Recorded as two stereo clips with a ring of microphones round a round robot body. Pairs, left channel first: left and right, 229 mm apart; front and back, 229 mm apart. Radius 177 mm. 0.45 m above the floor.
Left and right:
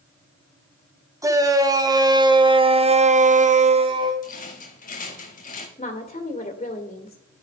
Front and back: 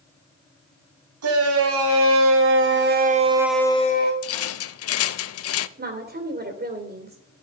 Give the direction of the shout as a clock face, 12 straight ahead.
6 o'clock.